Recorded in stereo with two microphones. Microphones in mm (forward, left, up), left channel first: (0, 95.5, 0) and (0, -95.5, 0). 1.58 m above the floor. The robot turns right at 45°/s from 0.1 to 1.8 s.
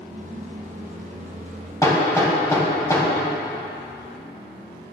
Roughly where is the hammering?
Centre.